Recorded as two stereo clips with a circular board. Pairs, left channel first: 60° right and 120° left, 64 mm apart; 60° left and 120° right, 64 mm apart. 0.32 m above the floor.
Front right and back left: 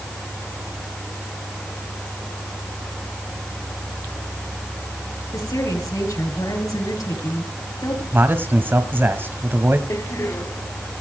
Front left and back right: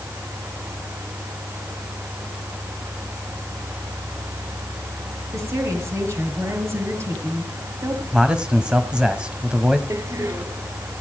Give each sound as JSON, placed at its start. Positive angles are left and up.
{"t": 5.3, "sound": "a woman speaking", "azimuth_deg": -80, "distance_m": 7.0}
{"t": 8.1, "sound": "a man speaking", "azimuth_deg": 165, "distance_m": 1.5}
{"t": 9.9, "sound": "a door slam", "azimuth_deg": -90, "distance_m": 1.4}